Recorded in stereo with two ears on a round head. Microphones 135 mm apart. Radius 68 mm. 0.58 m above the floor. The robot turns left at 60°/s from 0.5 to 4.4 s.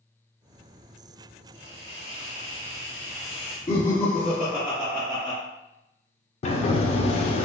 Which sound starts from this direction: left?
A sliding door, at 6.4 s.